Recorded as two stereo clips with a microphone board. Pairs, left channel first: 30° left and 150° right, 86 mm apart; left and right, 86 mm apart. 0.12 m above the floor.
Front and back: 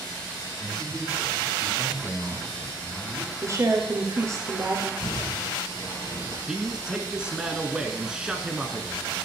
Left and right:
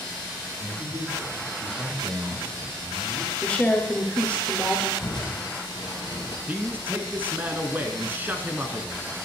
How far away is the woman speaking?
About 2 m.